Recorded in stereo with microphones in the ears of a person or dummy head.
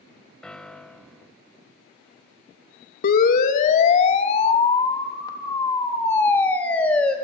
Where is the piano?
10° left (ahead or behind), 0.9 m.